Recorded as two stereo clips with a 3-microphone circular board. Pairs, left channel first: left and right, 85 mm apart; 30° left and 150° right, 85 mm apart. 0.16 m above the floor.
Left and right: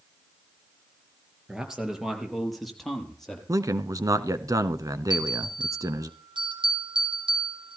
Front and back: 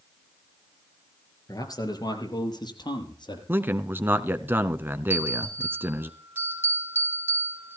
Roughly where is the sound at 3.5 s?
Right.